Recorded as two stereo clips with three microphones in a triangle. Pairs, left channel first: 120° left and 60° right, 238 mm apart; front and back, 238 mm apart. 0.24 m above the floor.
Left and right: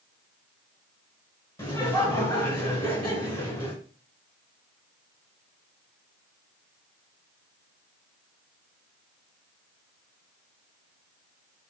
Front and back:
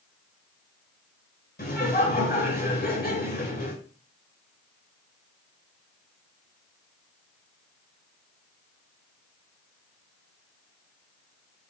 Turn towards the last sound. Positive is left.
turn(degrees=40)